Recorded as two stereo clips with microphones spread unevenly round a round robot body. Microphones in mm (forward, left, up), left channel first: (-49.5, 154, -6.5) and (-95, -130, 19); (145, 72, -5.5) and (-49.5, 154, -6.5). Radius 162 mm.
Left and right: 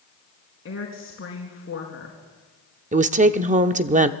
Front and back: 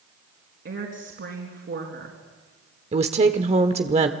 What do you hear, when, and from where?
0.7 s a woman speaking: 130° left, 4.5 m
2.9 s a woman speaking: 155° right, 0.9 m